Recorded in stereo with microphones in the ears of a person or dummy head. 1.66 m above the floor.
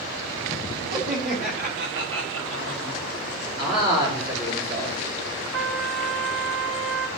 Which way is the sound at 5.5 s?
65° right (ahead or behind).